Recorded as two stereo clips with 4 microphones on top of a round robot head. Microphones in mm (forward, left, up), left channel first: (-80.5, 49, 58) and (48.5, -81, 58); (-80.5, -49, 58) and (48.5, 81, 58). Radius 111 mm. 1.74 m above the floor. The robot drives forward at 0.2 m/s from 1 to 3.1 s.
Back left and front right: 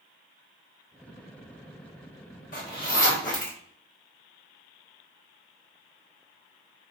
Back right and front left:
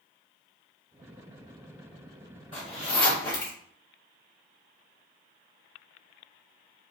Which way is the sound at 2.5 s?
165° left.